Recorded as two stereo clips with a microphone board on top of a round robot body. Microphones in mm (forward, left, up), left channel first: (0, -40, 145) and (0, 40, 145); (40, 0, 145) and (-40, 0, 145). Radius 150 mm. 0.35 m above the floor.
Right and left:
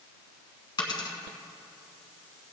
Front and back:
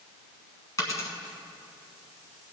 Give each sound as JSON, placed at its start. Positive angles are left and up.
{"t": 0.8, "sound": "a dropped coin", "azimuth_deg": -55, "distance_m": 1.4}